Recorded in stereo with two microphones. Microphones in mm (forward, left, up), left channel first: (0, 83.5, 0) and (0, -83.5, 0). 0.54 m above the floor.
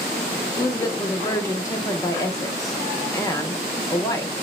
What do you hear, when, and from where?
0.6 s a woman speaking: 20° left (ahead or behind), 0.6 m